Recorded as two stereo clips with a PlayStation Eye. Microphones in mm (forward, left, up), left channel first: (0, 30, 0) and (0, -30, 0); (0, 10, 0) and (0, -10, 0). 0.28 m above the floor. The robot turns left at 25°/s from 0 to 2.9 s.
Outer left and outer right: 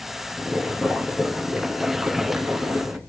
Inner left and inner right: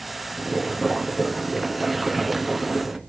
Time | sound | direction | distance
0.4 | boiling | 5° left | 1.0 m